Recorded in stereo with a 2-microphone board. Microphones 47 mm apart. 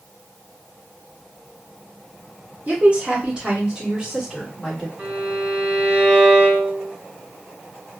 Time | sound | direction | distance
2.7 | a woman speaking | 30° right (ahead or behind) | 1.2 m
5.0 | a violin | 35° right (ahead or behind) | 0.9 m